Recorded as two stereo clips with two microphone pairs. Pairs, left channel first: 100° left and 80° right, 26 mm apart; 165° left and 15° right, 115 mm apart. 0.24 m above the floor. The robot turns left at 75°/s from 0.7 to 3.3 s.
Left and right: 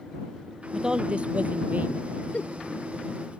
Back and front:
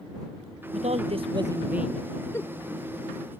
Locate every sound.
0.7 s a woman speaking: 10° right; by 2.2 s 125° right
2.3 s a giggle: 105° left; by 2.6 s 85° left